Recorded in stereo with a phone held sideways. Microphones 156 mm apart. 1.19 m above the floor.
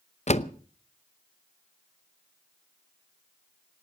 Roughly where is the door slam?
Left.